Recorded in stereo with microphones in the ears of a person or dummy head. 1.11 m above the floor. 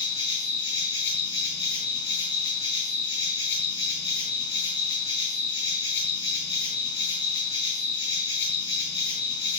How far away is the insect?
About 2 m.